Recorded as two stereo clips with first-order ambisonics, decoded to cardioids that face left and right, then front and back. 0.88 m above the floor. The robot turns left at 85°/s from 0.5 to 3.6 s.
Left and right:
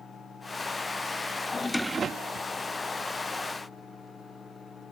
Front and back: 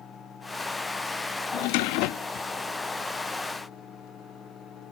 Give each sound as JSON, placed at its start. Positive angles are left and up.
{"t": 1.5, "sound": "a drawer", "azimuth_deg": 20}